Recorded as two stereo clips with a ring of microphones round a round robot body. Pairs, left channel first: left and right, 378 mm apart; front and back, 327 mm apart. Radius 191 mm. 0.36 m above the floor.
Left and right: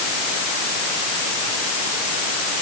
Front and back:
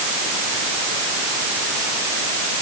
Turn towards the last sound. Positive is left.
No sound to turn to.